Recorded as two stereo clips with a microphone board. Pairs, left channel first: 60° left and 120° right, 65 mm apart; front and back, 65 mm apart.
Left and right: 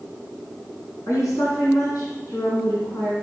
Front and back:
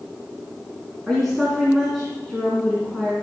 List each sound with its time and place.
1.1 s a woman speaking: 85° left, 3 m